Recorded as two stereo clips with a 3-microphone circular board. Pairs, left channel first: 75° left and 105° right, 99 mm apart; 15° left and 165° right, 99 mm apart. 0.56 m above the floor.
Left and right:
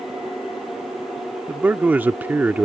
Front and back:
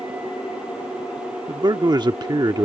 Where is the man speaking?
170° right.